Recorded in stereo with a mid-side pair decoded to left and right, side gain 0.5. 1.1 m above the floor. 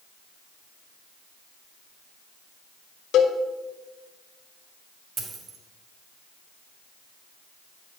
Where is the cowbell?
65° left, 1.2 m.